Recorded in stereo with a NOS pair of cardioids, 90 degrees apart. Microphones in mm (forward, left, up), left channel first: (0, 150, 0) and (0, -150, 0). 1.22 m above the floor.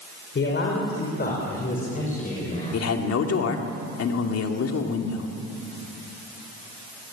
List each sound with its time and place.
0.3 s a man speaking: 40° left, 5 m; by 2.9 s 20° left, 6 m
2.7 s a man speaking: 55° left, 2.5 m